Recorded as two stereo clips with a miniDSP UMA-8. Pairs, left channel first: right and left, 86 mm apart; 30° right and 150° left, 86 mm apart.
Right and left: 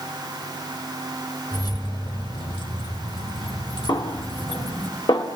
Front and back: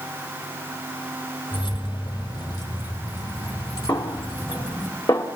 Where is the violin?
I don't hear a violin.